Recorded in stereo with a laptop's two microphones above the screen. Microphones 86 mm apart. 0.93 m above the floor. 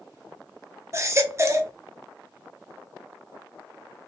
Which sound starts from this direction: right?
A baby crying, at 0.9 s.